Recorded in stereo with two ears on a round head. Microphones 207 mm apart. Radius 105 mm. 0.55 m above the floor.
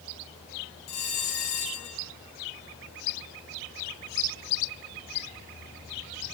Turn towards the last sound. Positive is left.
turn(degrees=80)